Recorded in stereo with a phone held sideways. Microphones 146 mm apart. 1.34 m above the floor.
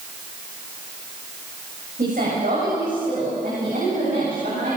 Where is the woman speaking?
70° right (ahead or behind), 7 m.